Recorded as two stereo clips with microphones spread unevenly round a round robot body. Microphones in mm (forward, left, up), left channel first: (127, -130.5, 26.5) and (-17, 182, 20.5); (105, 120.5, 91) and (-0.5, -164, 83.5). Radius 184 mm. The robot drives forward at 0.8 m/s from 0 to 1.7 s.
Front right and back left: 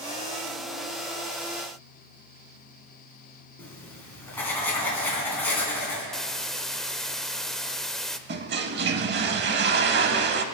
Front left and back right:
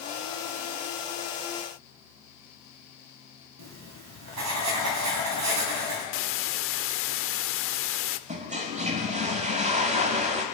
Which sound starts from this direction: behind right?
Writing, at 3.6 s.